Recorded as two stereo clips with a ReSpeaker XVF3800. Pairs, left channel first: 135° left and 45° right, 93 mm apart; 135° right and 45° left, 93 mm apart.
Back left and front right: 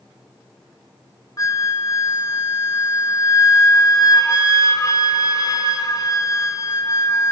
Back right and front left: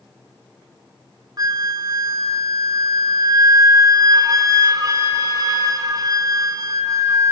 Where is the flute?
90° left, 1.4 m.